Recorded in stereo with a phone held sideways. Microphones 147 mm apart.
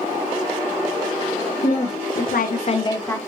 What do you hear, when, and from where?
1.6 s a woman speaking: 55° left (ahead or behind), 0.9 m; by 3.2 s 15° left (ahead or behind), 0.7 m